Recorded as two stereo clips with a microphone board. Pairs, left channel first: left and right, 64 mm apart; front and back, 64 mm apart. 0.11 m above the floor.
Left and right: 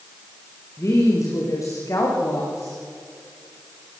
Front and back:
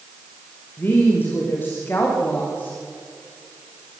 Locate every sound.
0.8 s a woman speaking: 55° left, 7.5 m